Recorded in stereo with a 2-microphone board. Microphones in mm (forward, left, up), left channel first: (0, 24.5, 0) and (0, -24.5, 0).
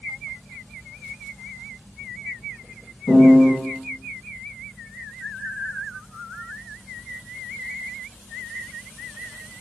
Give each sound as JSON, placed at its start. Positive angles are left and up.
{"t": 3.1, "sound": "a piano", "side_deg": 30, "distance_m": 1.9}